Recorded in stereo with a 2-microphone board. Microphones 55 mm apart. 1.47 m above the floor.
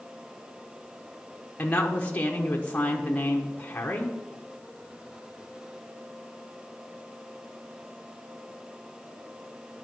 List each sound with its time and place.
1.6 s a woman speaking: 25° left (ahead or behind), 0.9 m